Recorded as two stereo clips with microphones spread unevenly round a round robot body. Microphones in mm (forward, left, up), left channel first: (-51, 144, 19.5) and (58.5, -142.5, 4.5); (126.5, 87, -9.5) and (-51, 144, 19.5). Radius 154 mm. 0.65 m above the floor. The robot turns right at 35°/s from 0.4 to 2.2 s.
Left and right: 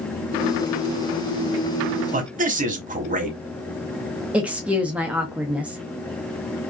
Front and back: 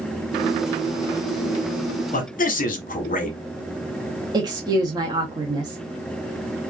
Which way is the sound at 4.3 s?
140° right.